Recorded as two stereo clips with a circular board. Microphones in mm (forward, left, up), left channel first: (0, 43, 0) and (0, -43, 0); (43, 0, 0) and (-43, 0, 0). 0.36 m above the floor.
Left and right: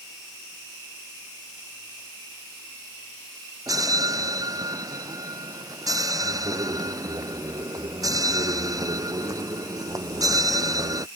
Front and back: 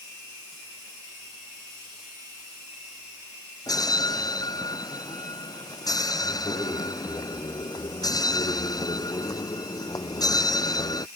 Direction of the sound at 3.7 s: 45° right.